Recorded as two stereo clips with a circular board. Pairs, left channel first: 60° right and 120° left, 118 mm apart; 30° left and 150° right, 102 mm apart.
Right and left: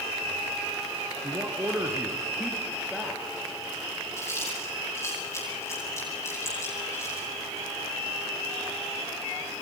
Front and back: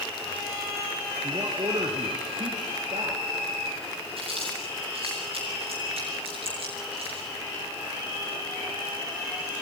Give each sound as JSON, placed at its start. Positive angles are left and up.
{"t": 1.2, "sound": "a man speaking", "azimuth_deg": 175, "distance_m": 3.0}
{"t": 4.2, "sound": "chewing", "azimuth_deg": -125, "distance_m": 9.0}